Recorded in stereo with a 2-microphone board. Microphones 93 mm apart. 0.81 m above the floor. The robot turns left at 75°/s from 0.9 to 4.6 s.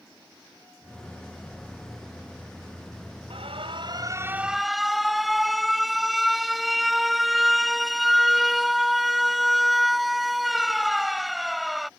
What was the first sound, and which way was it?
An alarm, 85° right.